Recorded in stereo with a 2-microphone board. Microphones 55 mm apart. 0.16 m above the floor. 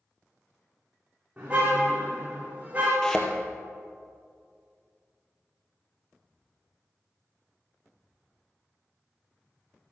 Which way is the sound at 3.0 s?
15° left (ahead or behind).